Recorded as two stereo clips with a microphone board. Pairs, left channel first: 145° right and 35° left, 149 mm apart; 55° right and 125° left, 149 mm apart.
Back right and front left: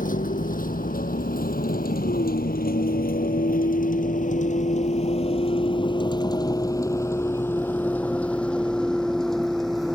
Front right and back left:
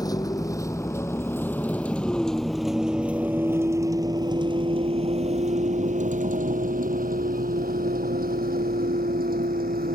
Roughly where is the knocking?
No knocking in this recording.